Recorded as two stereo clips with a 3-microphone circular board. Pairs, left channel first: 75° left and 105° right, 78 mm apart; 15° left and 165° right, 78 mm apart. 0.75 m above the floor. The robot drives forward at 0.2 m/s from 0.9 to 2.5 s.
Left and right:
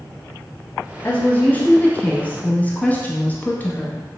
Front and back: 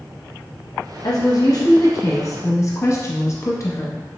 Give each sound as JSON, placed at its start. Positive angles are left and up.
{"t": 1.0, "sound": "a woman speaking", "azimuth_deg": 10, "distance_m": 0.8}